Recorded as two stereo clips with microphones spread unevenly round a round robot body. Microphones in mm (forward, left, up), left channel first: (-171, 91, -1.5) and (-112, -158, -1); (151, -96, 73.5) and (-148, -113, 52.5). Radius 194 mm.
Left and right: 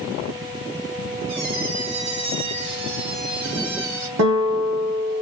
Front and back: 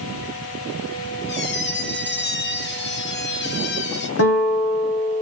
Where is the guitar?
35° right, 1.2 m.